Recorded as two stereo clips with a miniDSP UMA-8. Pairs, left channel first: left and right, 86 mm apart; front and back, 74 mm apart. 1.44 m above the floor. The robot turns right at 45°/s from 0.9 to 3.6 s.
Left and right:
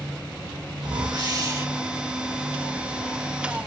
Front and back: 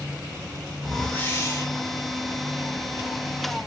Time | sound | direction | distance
0.8 | a whoosh | 75° right | 0.9 m